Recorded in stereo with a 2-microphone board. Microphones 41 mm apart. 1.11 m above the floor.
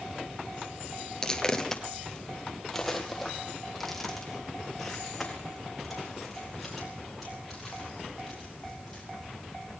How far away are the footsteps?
About 1.1 m.